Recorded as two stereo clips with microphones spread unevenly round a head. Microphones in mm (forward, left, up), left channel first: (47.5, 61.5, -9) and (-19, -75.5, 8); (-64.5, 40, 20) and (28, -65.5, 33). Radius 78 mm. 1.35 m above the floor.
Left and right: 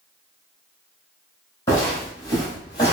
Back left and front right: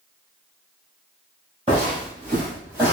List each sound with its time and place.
1.7 s footsteps: 5° right, 2.0 m; by 2.9 s 10° left, 1.5 m